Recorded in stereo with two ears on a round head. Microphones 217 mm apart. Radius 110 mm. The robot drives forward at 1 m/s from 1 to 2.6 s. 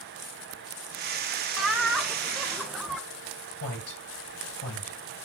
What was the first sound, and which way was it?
Laughter, centre (ahead or behind).